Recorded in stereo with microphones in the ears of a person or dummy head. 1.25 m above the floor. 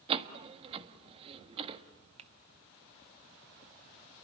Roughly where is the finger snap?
Right.